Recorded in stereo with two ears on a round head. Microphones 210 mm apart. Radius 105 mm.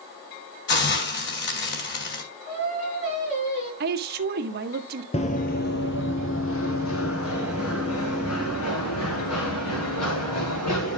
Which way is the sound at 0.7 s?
50° left (ahead or behind).